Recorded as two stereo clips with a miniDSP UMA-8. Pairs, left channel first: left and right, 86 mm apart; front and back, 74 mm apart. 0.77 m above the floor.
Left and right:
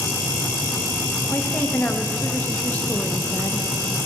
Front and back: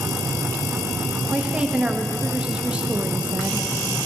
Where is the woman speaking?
125° left, 1.0 m.